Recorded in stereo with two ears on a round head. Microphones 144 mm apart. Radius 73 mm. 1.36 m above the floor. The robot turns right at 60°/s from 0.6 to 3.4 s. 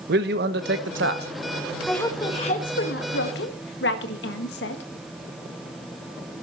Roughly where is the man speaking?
Right.